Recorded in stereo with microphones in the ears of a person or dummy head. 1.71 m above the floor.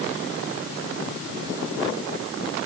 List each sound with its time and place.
Only background noise.